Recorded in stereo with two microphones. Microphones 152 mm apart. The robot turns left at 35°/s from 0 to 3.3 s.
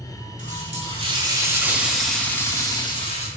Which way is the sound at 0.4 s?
125° right.